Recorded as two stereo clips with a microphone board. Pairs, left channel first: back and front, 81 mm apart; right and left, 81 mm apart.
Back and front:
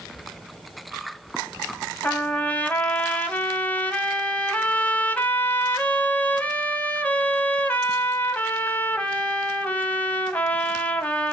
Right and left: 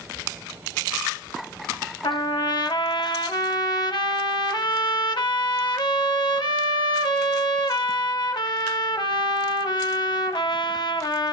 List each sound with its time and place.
2.0 s a trumpet: 110° right, 0.5 m